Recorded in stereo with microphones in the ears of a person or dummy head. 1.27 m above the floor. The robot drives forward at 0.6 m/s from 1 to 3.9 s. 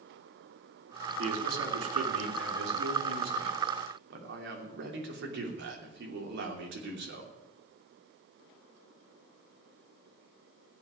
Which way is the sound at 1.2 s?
75° right (ahead or behind).